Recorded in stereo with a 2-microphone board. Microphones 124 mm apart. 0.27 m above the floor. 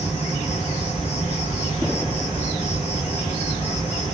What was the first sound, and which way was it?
An insect, 60° left (ahead or behind).